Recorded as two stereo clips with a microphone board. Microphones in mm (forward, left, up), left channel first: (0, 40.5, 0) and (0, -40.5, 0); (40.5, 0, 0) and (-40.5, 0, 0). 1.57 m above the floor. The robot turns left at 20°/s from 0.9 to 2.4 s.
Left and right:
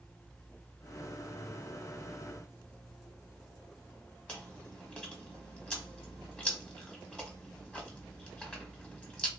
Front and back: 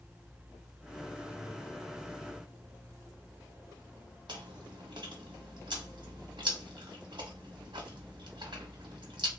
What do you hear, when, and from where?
4.3 s chewing: 165° left, 1.1 m